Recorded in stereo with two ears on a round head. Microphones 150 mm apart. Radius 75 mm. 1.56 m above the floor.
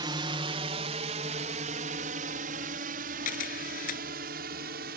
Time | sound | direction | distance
0.0 | a drone | 25° right (ahead or behind) | ?
3.2 | a camera shutter | 50° left (ahead or behind) | ?